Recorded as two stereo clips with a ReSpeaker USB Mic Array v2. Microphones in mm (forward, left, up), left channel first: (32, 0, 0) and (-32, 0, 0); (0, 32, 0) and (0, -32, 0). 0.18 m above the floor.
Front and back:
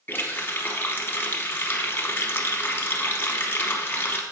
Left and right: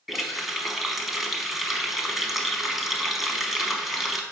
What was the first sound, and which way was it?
A running tap, 5° right.